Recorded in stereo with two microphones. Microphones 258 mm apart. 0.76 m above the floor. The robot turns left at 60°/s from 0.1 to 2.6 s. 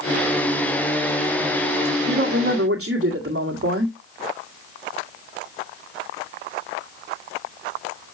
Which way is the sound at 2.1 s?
65° right.